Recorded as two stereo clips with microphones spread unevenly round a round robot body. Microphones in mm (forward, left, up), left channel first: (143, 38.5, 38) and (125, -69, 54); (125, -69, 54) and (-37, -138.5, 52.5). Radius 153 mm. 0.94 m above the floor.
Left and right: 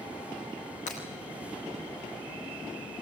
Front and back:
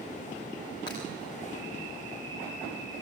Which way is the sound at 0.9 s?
100° left.